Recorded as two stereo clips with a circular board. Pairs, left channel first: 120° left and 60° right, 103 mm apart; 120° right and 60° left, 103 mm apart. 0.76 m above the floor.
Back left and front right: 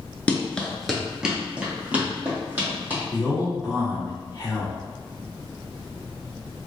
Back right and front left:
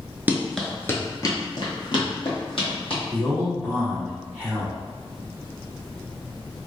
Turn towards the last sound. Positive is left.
turn(degrees=110)